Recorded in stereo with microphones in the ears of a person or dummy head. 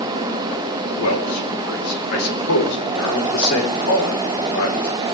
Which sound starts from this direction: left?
A man speaking, at 1.0 s.